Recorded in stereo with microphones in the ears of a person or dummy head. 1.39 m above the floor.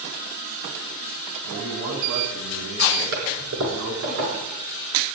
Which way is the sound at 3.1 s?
75° right (ahead or behind).